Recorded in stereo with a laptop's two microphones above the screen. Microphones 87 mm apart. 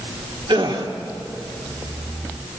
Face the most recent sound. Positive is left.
turn(degrees=-75)  # may be behind; listen again after turning